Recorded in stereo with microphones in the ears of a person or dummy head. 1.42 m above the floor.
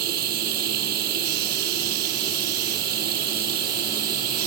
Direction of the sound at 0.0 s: 50° right (ahead or behind).